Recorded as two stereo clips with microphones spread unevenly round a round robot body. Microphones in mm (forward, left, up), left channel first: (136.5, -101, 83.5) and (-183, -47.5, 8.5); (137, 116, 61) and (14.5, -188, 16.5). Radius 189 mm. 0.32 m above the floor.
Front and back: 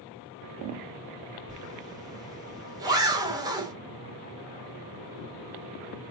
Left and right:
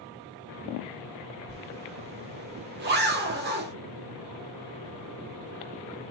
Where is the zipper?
135° right, 1.5 m.